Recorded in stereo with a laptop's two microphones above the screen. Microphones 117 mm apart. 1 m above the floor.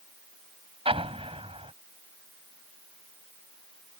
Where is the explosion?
55° right (ahead or behind).